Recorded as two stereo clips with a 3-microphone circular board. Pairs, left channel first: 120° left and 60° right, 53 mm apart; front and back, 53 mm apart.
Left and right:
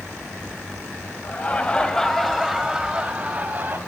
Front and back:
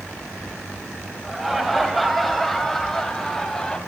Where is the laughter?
100° left, 1.1 m; by 3.8 s 70° right, 1.2 m.